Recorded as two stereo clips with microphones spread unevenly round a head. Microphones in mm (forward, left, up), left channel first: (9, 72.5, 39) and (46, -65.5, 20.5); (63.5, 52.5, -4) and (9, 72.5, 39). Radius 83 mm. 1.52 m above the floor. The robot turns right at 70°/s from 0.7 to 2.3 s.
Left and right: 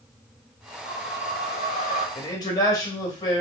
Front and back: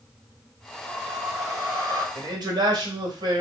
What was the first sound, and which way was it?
A whoosh, 70° left.